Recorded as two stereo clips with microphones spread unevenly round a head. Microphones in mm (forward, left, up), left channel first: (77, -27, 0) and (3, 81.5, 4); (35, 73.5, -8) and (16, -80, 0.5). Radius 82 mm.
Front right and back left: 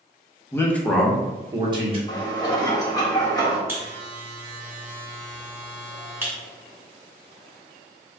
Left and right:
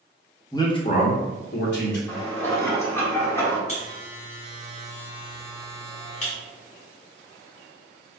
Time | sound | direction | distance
0.5 | a man speaking | 15° left | 0.9 m
2.1 | dishes clattering | 5° left | 1.2 m
3.7 | a buzzer | 60° left | 1.4 m